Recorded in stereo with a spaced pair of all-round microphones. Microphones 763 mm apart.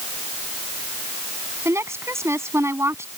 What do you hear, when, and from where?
1.6 s a woman speaking: 5° right (ahead or behind)